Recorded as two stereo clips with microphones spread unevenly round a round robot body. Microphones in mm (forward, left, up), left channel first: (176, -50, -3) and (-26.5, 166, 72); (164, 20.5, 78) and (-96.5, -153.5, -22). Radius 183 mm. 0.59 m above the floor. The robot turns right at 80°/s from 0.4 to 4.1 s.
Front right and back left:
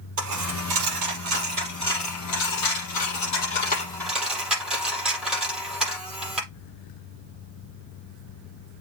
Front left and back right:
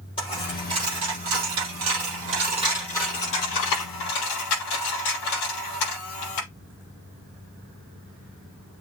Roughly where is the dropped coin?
Left.